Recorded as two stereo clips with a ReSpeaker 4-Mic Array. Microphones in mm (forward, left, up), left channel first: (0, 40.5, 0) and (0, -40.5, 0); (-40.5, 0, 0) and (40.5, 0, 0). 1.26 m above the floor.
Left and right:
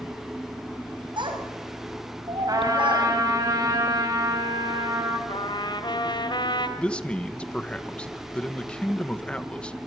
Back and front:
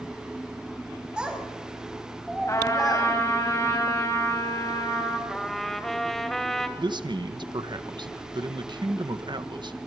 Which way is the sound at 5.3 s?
95° left.